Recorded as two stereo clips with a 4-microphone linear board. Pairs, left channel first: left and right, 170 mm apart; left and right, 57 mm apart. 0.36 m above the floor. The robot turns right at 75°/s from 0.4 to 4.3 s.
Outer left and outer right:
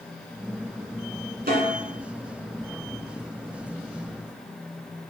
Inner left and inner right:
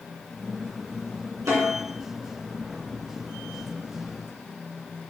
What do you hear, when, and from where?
1.5 s a snare drum: 65° right (ahead or behind), 2.5 m; by 1.7 s 50° right (ahead or behind), 2.5 m